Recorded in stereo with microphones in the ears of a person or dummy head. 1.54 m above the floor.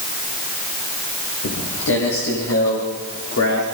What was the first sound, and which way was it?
Footsteps, 70° left (ahead or behind).